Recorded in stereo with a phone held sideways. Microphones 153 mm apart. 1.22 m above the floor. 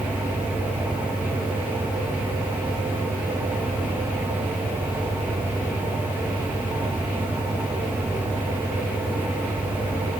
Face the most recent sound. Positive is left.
turn(degrees=-10)  # may be behind; listen again after turning